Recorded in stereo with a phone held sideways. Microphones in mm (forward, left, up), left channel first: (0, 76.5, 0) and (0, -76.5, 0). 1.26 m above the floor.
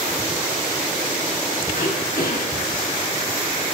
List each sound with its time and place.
1.7 s throat clearing: 70° left (ahead or behind), 4 m